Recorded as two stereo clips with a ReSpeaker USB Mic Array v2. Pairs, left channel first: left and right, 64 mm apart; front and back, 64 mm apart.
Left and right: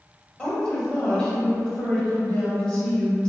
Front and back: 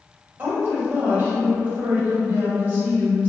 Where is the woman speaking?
155° left, 1.1 m.